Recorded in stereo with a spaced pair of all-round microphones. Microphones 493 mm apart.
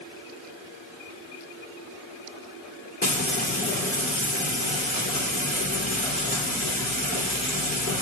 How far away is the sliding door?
No sliding door in this recording.